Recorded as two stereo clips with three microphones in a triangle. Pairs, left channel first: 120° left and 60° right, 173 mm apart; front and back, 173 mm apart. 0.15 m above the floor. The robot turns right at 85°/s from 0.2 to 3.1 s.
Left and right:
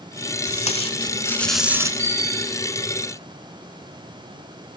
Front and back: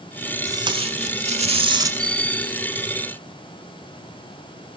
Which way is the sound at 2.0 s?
20° right.